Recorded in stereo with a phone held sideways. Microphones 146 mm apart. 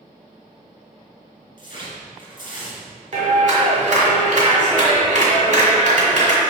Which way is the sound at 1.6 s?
70° left (ahead or behind).